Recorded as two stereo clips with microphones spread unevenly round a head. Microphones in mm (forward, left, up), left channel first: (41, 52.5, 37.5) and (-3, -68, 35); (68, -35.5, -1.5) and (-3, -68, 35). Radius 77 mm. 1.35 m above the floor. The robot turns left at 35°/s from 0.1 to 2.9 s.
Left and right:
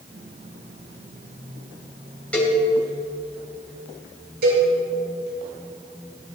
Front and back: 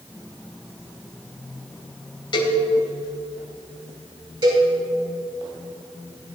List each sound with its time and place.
2.3 s a cowbell: 10° right, 3 m; by 2.6 s 20° right, 3 m
4.4 s a cowbell: 125° right, 6 m